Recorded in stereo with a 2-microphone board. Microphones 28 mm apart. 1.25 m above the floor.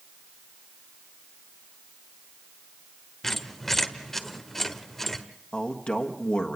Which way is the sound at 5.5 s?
45° left (ahead or behind).